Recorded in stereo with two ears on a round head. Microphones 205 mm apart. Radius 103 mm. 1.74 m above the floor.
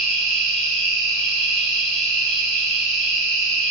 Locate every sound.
0.0 s an insect: 5° left (ahead or behind), 1.0 m